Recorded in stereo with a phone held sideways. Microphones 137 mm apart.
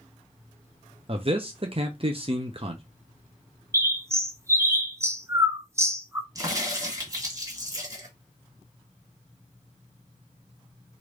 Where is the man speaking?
45° right (ahead or behind), 0.6 m.